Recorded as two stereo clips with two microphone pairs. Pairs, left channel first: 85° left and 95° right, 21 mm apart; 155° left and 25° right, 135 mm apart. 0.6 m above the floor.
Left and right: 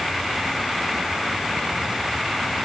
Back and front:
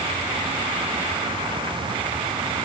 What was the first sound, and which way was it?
Only background noise.